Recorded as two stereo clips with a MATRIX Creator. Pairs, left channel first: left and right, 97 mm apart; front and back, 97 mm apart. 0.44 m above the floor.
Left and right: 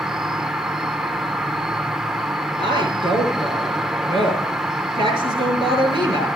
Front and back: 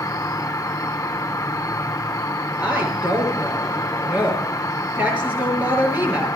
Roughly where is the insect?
Ahead.